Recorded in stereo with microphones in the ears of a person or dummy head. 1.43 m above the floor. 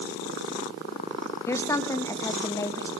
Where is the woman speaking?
15° left (ahead or behind), 1.9 m.